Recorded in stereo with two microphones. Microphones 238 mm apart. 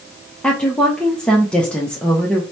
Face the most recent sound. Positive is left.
turn(degrees=5)  # may be behind; listen again after turning